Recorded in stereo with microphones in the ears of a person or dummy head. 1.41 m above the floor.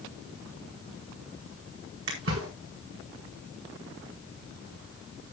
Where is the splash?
75° right (ahead or behind), 4.5 m.